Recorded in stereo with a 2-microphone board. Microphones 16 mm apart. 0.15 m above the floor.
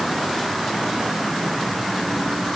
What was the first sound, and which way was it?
Only background noise.